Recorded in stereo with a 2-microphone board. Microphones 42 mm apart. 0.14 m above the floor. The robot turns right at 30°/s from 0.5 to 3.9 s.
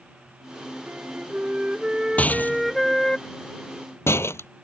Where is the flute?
55° right; by 3.2 s 15° left.